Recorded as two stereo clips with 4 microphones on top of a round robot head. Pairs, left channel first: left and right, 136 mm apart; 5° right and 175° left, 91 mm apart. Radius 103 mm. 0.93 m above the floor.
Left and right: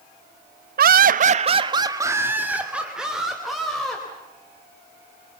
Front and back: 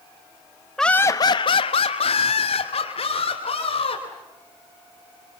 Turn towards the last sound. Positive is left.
turn(degrees=0)